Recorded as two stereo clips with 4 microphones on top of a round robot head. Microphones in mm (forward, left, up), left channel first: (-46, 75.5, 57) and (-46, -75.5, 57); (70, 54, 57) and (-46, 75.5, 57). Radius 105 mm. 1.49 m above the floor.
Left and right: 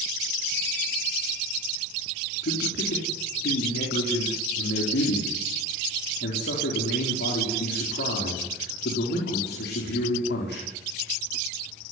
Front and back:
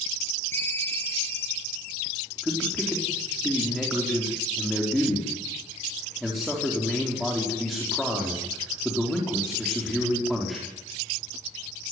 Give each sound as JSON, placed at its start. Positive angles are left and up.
{"t": 0.5, "sound": "a ringtone", "azimuth_deg": 65, "distance_m": 8.5}
{"t": 2.4, "sound": "a man speaking", "azimuth_deg": 80, "distance_m": 4.5}